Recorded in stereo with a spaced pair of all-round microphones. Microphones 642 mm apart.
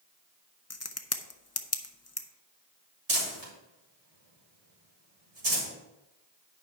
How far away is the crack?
About 0.6 m.